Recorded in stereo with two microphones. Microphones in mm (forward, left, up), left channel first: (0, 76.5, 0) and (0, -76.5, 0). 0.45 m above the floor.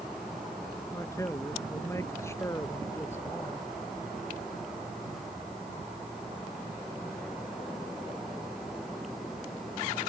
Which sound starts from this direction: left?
A man speaking, at 0.9 s.